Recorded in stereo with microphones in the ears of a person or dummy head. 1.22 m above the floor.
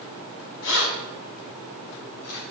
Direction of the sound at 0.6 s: 85° left.